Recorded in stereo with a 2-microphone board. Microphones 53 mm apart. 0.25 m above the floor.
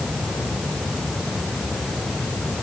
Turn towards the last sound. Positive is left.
No sound to turn to.